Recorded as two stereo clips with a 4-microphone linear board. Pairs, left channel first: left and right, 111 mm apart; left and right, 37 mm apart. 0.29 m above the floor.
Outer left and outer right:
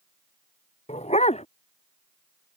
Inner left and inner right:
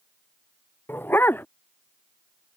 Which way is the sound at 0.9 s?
70° left (ahead or behind).